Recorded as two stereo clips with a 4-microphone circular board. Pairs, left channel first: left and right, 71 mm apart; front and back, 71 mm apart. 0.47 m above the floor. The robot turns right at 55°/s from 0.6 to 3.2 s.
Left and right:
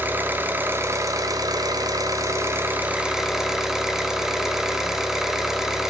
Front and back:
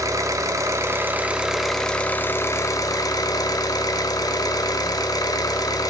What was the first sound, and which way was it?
An engine running, 150° right.